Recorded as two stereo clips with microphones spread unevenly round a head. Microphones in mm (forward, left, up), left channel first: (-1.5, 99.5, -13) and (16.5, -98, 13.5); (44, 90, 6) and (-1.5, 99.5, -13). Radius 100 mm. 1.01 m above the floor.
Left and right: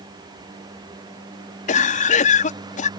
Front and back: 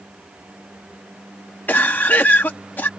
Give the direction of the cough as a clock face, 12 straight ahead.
11 o'clock.